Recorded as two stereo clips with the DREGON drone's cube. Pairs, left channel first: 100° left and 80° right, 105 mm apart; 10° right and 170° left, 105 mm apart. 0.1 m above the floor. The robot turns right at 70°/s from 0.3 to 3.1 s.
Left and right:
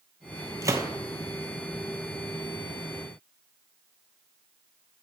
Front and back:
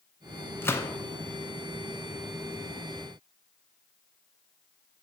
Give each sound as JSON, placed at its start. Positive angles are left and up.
{"t": 0.6, "sound": "a gunshot", "azimuth_deg": -65, "distance_m": 0.7}